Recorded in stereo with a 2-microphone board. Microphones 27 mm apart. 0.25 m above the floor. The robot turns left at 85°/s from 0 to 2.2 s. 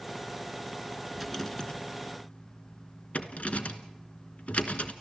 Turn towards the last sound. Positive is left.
turn(degrees=75)  # may be behind; listen again after turning